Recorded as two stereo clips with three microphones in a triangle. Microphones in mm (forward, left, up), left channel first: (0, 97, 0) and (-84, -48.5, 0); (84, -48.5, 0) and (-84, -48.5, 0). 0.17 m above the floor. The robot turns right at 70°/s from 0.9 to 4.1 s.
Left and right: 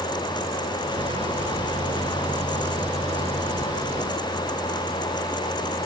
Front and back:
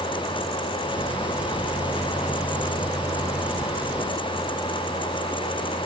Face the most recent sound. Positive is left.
No sound to turn to.